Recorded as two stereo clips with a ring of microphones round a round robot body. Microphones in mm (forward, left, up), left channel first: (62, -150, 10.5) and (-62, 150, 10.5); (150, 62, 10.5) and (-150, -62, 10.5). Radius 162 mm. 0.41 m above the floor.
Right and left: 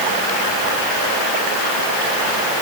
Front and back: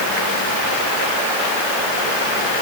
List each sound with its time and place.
Only background noise.